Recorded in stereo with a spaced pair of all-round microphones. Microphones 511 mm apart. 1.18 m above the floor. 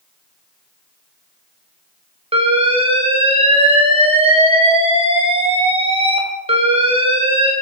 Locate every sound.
2.3 s an alarm: 10° right (ahead or behind), 0.9 m